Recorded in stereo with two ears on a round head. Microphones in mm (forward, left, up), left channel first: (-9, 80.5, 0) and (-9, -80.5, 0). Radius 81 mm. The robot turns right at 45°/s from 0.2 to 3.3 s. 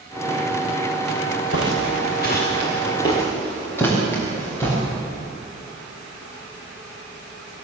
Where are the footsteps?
75° left (ahead or behind), 4 m; by 4.8 s 15° left (ahead or behind), 8.5 m.